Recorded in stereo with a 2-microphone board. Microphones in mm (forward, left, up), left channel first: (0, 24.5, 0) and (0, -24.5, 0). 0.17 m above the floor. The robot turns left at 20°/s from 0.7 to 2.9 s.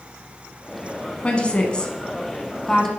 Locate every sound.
1.2 s a woman speaking: 20° left (ahead or behind), 1.3 m; by 2.9 s 5° left (ahead or behind), 1.3 m